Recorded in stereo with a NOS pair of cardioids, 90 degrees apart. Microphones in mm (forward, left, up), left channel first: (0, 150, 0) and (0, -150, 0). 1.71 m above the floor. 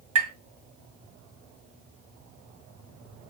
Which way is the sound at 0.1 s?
50° right.